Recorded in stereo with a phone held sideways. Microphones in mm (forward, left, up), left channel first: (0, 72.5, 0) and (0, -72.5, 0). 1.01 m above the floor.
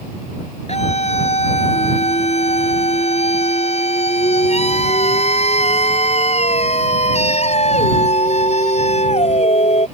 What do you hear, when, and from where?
0.7 s a scream: 45° left (ahead or behind)